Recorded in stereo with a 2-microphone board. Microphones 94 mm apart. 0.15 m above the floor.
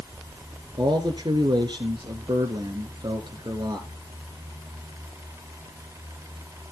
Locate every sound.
0.8 s a man speaking: 55° right (ahead or behind), 2 m